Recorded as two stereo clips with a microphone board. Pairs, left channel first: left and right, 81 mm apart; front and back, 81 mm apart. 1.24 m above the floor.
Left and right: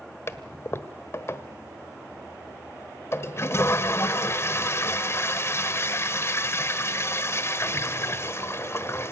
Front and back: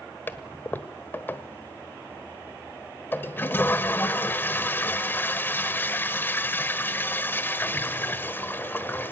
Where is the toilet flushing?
55° left, 1.2 m.